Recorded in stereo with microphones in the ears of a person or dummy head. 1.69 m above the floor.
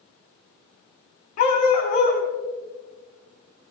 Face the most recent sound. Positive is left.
turn(degrees=50)  # may be behind; listen again after turning